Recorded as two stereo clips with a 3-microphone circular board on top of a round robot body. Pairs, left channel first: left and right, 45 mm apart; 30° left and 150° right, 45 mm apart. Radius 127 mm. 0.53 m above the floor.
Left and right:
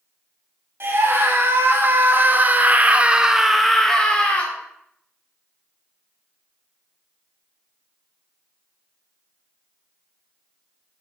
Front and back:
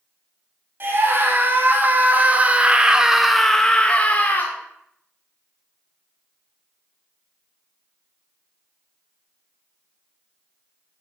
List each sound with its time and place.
0.8 s a scream: 115° right, 2.5 m; by 4.5 s 45° left, 1.5 m